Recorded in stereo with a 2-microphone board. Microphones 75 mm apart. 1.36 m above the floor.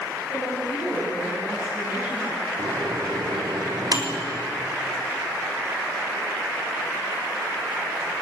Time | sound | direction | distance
0.3 | a woman speaking | 30° right (ahead or behind) | 8 m
2.6 | a microwave | 60° right (ahead or behind) | 3.5 m